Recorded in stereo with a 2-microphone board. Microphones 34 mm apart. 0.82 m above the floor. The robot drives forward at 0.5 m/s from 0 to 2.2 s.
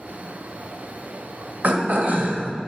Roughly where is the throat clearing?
Right.